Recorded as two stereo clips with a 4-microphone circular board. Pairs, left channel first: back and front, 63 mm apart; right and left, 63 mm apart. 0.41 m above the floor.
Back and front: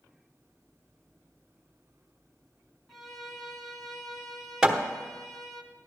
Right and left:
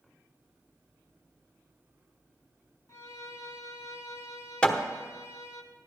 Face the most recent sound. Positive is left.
turn(degrees=-55)